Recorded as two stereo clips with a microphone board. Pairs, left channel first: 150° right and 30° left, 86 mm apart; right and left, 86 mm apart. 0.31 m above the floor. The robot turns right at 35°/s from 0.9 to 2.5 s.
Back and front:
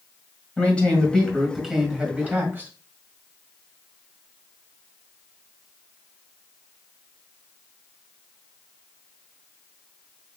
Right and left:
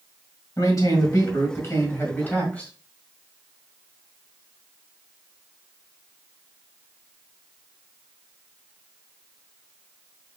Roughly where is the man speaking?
Right.